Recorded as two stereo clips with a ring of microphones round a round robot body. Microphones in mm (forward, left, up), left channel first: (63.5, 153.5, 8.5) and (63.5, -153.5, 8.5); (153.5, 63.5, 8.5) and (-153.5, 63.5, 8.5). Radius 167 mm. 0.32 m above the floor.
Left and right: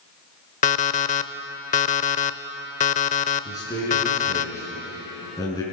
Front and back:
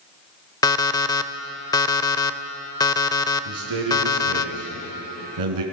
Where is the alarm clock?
65° left, 0.7 m.